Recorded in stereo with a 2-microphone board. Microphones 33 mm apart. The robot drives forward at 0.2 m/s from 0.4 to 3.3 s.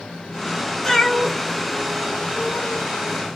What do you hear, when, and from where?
0.8 s a cat meowing: 10° left (ahead or behind), 0.7 m